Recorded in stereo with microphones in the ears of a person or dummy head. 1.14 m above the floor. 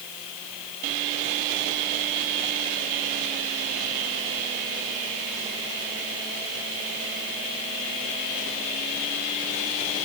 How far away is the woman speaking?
No woman speaking in this recording.